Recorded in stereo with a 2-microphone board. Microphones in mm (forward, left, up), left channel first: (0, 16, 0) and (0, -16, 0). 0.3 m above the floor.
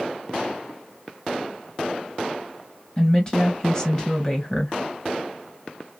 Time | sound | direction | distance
3.0 | a woman speaking | 20° left (ahead or behind) | 1.9 m